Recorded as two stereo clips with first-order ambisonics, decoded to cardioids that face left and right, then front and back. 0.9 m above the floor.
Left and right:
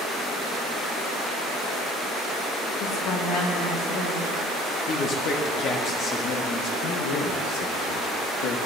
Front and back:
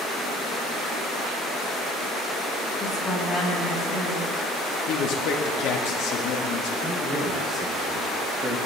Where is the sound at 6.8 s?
95° left, 1.5 m.